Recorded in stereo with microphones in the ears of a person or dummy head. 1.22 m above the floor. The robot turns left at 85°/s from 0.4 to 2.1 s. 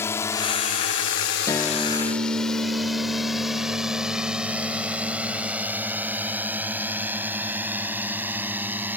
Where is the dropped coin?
No dropped coin in this recording.